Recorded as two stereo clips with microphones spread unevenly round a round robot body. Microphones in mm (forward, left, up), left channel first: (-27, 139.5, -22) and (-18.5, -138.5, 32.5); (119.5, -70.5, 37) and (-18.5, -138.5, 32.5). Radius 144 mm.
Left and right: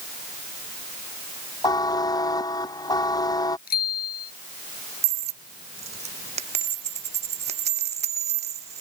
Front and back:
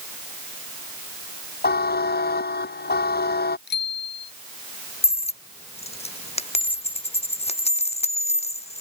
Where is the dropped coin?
20° right.